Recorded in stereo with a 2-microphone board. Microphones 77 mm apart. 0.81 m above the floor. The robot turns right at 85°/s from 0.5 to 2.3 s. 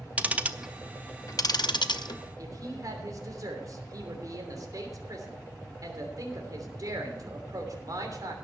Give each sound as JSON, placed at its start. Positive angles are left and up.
{"t": 0.2, "sound": "ticking", "side_deg": -20, "distance_m": 0.6}
{"t": 2.4, "sound": "a woman speaking", "side_deg": -55, "distance_m": 3.0}